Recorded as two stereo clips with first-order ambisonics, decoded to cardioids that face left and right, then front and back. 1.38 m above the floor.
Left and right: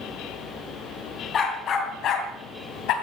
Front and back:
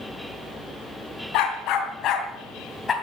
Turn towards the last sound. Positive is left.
turn(degrees=70)